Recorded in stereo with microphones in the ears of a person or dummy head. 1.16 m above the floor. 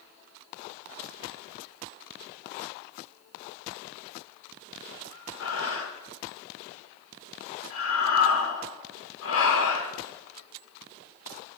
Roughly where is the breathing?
Left.